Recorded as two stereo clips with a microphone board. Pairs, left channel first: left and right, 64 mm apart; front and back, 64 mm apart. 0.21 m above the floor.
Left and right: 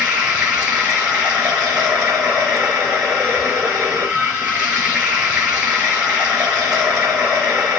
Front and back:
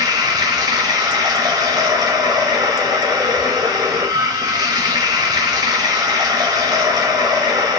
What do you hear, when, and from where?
0.0 s running water: 165° right, 1.0 m